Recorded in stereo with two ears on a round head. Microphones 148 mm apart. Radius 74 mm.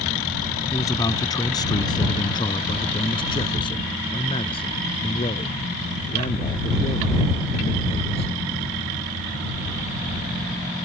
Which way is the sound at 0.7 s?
20° left (ahead or behind).